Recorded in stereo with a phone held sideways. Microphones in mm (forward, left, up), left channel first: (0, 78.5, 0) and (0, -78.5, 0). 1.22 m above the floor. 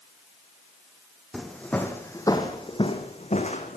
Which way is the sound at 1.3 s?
Centre (ahead or behind).